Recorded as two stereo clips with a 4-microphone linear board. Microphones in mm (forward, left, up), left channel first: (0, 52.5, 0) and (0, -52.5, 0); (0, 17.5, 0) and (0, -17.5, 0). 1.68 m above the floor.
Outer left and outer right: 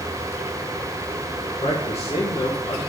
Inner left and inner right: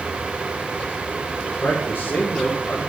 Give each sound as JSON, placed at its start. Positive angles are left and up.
{"t": 1.6, "sound": "a man speaking", "side_deg": 85, "distance_m": 2.5}